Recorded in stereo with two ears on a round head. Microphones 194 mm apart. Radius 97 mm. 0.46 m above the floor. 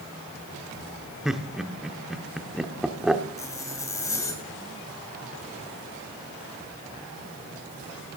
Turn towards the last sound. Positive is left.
turn(degrees=15)  # may be behind; listen again after turning